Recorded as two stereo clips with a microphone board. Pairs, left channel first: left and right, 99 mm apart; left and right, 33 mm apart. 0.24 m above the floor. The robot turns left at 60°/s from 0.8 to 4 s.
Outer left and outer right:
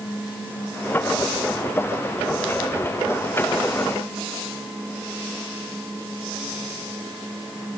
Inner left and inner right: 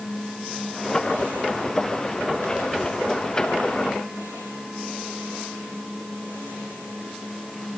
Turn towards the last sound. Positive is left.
No sound to turn to.